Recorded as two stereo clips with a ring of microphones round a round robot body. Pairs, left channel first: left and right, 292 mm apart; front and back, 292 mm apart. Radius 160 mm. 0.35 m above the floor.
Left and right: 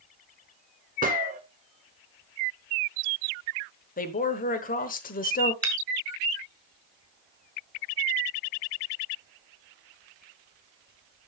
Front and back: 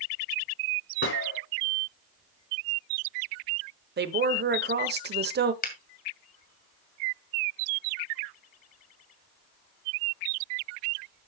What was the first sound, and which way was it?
A gunshot, 35° right.